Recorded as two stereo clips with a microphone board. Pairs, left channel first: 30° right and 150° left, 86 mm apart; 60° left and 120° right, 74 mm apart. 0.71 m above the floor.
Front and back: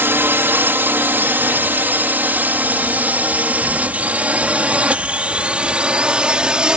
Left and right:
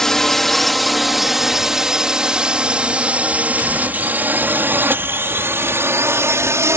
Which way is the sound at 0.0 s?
135° left.